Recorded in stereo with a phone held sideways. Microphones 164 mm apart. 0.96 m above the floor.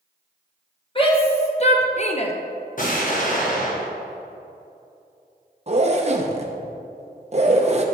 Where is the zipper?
40° right (ahead or behind), 0.6 m.